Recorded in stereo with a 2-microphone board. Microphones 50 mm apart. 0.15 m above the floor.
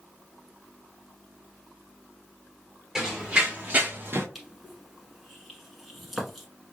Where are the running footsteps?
10° right (ahead or behind), 1.6 m; by 4.2 s 50° right (ahead or behind), 1.2 m.